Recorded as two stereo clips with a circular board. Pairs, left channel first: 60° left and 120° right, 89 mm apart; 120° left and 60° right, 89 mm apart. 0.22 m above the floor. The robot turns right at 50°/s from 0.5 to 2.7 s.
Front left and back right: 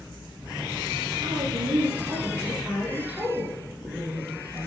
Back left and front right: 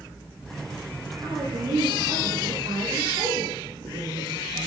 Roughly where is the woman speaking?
Behind right.